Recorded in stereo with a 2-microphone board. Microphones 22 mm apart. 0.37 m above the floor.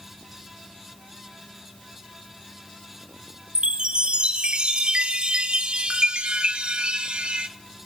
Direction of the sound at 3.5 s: 60° right (ahead or behind).